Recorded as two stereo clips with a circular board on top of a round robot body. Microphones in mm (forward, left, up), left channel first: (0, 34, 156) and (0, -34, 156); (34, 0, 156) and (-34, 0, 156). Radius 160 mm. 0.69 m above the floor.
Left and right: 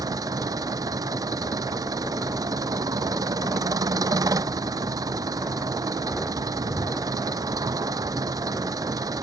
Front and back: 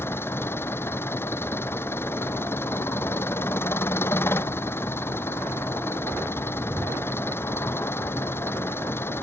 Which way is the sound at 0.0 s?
55° right.